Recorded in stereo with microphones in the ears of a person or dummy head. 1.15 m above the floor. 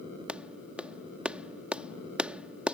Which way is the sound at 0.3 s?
5° right (ahead or behind).